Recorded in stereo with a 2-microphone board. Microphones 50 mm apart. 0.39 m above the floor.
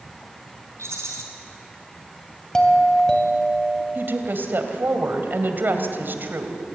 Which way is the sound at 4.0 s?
45° right (ahead or behind).